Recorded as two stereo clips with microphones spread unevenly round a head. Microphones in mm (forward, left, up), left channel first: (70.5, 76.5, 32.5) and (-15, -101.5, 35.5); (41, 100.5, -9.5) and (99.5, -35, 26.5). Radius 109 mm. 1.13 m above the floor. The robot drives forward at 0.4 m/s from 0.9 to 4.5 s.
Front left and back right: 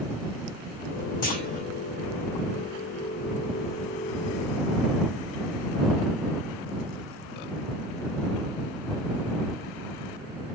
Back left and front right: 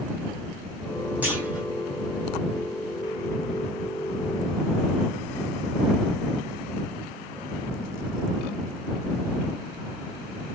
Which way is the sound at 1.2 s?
20° left.